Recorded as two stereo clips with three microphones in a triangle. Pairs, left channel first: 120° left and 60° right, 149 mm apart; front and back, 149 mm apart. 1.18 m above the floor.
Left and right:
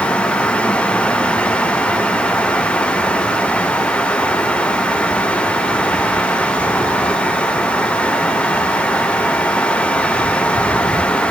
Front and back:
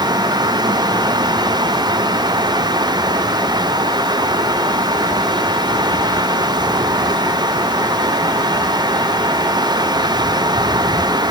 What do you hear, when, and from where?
Only background noise.